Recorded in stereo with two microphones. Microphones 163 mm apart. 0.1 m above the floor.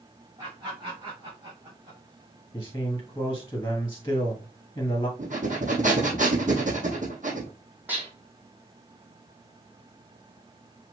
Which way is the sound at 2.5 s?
15° left (ahead or behind).